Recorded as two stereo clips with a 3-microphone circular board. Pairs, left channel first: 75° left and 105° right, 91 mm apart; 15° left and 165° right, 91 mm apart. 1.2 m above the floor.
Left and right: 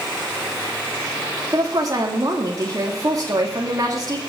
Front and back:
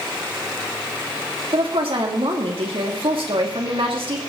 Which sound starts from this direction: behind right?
A woman speaking, at 1.5 s.